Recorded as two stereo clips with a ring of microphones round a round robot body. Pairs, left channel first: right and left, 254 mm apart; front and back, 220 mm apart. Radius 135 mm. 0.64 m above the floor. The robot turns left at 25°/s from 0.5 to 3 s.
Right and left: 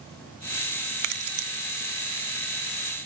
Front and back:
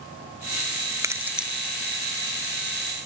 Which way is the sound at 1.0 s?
105° left.